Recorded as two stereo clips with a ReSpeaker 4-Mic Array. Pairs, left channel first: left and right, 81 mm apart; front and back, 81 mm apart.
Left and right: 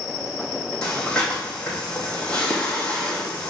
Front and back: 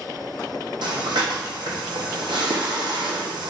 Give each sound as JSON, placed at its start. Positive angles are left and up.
{"t": 0.8, "sound": "breathing", "azimuth_deg": 170, "distance_m": 3.0}